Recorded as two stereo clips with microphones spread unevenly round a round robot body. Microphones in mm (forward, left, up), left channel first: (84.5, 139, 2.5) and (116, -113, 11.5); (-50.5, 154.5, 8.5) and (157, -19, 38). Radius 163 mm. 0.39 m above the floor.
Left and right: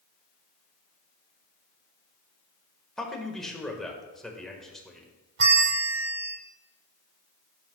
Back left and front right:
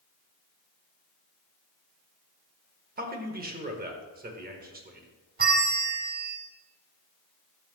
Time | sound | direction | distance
3.0 | a man speaking | 10° left | 1.4 m
5.4 | a bell | 90° right | 1.1 m